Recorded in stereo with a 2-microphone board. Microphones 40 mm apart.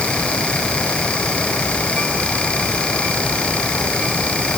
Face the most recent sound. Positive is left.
No sound to turn to.